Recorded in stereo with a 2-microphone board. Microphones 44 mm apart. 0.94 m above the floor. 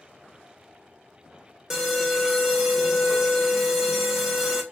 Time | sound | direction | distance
1.7 | an alarm | 10° right (ahead or behind) | 0.8 m